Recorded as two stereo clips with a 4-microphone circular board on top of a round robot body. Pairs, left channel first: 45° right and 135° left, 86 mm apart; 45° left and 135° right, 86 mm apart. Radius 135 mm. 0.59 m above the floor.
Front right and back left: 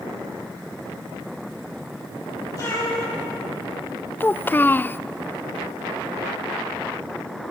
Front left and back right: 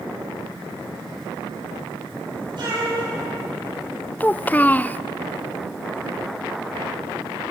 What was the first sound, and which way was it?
A cat meowing, 100° right.